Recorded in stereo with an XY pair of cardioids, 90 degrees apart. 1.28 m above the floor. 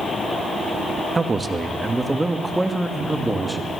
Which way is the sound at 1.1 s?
25° right.